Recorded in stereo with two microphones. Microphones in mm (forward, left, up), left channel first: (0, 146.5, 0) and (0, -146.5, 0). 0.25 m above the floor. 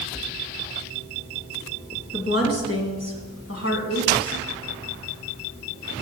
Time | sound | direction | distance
2.1 | a woman speaking | 50° left (ahead or behind) | 1.7 m